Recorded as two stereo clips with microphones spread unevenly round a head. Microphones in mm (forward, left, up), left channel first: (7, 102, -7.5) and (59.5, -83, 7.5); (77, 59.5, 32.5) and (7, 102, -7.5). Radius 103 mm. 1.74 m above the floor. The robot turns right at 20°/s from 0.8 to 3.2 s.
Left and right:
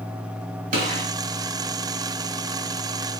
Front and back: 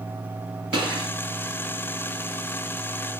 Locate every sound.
0.7 s a gunshot: 100° right, 2 m; by 1.1 s 95° right, 2 m